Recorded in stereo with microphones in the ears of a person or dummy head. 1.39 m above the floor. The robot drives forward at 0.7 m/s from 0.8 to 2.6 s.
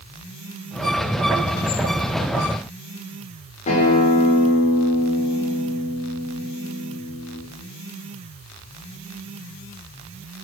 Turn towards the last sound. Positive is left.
turn(degrees=35)  # may be behind; listen again after turning